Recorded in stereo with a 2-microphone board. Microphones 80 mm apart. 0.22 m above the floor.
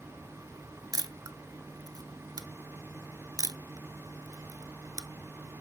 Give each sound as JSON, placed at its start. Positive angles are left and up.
{"t": 0.9, "sound": "a camera shutter", "side_deg": -55, "distance_m": 0.7}